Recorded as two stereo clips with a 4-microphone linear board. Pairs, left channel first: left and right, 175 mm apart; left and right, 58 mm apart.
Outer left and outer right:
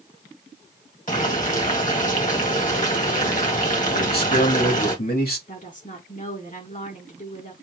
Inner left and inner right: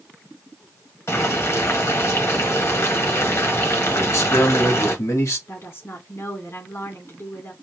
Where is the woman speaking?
45° left (ahead or behind), 1.9 m.